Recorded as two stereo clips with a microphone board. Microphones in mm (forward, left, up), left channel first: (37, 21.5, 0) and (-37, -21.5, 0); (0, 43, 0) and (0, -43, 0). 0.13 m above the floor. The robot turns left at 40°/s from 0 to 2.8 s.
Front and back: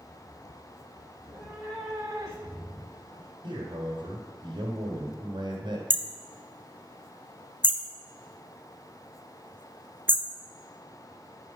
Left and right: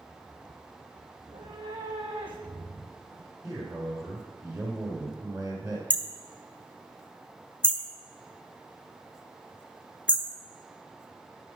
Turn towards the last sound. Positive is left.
turn(degrees=155)